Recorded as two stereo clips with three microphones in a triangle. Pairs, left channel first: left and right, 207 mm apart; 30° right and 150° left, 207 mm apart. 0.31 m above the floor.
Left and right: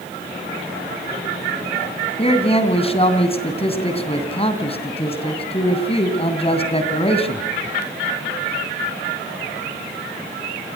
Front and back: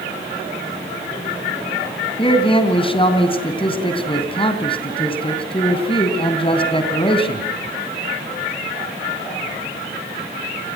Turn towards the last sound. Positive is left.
turn(degrees=30)